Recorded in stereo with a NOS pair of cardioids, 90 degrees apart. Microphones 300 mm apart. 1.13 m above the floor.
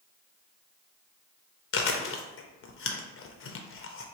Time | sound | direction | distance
1.7 | chewing | 45° left | 0.6 m